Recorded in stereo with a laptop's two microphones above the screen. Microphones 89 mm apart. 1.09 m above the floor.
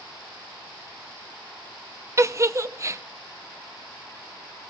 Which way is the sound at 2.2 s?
35° right (ahead or behind).